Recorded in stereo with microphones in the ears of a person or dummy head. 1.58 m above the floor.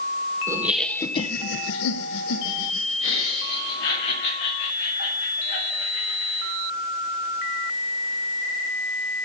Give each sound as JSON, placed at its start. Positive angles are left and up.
{"t": 0.5, "sound": "laughter", "side_deg": -15, "distance_m": 1.1}